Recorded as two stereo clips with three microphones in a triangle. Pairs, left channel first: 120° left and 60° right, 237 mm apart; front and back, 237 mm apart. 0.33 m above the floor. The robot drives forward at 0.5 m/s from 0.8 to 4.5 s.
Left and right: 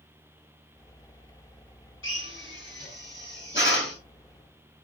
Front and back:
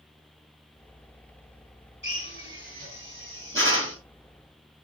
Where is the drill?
145° left, 3.5 m; by 4.0 s 155° left, 4.5 m.